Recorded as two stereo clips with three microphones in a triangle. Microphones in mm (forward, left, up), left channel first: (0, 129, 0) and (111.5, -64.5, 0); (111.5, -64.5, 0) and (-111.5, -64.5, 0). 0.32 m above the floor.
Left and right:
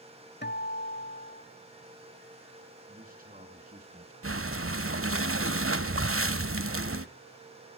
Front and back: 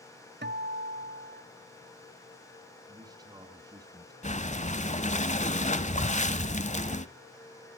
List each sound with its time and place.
0.4 s a guitar: 150° left, 0.8 m
2.9 s a man speaking: 110° right, 3 m
4.2 s breathing: 60° right, 0.9 m